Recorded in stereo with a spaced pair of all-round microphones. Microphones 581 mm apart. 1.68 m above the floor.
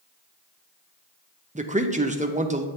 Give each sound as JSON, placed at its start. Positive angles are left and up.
{"t": 1.6, "sound": "a man speaking", "side_deg": -15, "distance_m": 0.6}